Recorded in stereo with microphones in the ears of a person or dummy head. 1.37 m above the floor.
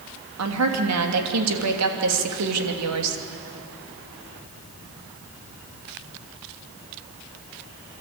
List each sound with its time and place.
0.4 s a woman speaking: 80° right, 2.5 m